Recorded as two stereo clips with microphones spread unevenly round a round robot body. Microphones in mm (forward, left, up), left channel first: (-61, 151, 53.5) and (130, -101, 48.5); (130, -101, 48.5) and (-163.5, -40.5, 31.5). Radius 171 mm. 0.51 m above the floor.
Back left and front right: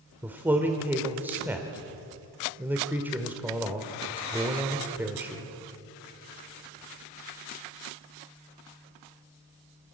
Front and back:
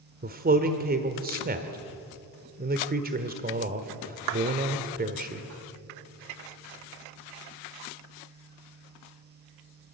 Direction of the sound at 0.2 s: 135° right.